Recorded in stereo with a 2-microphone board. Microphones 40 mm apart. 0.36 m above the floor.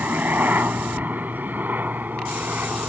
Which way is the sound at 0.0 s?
45° right (ahead or behind).